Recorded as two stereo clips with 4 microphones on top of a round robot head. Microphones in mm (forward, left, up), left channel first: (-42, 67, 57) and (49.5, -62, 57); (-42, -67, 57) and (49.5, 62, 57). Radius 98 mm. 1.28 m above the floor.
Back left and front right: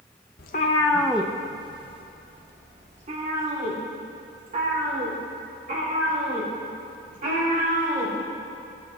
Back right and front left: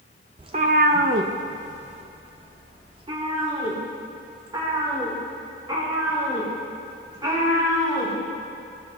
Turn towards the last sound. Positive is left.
turn(degrees=-10)